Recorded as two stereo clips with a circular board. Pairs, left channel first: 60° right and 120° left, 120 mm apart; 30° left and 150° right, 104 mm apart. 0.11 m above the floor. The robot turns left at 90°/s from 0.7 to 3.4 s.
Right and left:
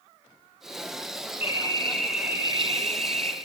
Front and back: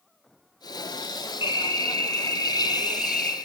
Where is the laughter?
No laughter in this recording.